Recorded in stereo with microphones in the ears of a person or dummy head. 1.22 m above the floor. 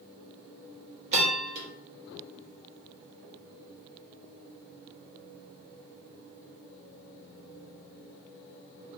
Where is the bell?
35° right (ahead or behind), 0.9 m.